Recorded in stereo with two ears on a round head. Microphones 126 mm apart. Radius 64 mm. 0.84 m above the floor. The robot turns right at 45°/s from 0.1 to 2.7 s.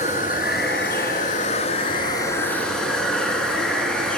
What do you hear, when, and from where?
0.0 s running water: 60° left, 3 m; by 4.2 s 175° left, 3 m